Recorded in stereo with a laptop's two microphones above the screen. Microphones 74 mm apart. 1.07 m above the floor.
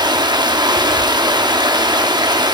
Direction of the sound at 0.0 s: 75° right (ahead or behind).